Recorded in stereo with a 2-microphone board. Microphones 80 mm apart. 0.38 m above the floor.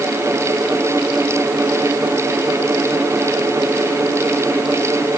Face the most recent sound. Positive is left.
No sound to turn to.